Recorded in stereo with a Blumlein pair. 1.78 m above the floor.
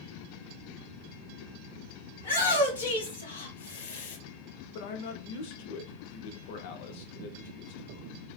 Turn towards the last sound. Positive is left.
turn(degrees=50)